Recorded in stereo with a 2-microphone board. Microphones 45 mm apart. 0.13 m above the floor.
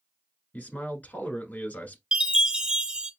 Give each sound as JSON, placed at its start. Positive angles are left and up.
{"t": 0.5, "sound": "a man speaking", "side_deg": 40, "distance_m": 1.2}
{"t": 2.1, "sound": "a chime", "side_deg": -20, "distance_m": 0.6}